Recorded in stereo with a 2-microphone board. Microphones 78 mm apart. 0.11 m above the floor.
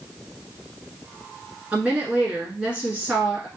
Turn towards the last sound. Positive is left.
turn(degrees=-20)  # may be behind; listen again after turning